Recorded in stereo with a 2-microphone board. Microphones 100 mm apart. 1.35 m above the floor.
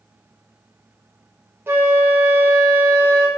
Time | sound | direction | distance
1.7 | a flute | 25° right (ahead or behind) | 0.6 m